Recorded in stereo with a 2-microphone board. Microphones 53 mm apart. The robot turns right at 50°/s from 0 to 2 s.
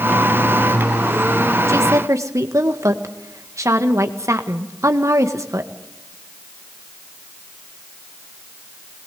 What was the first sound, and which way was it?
A woman speaking, 65° right (ahead or behind).